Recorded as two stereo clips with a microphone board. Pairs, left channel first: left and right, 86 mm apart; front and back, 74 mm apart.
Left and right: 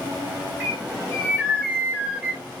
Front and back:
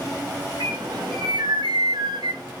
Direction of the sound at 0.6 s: 160° right.